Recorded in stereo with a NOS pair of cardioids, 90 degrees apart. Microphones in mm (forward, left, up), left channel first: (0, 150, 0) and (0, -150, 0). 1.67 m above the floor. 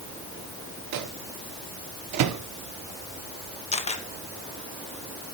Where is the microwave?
70° right, 1.2 m.